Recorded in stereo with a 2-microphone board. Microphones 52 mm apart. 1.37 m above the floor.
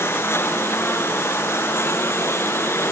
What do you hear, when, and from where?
0.0 s a lawn mower: 55° left (ahead or behind)